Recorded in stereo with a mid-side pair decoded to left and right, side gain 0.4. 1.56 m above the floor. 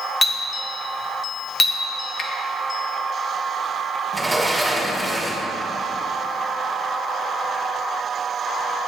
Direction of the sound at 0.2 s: 30° left.